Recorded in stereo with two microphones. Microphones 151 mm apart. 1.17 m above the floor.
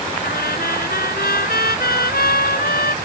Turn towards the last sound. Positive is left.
turn(degrees=85)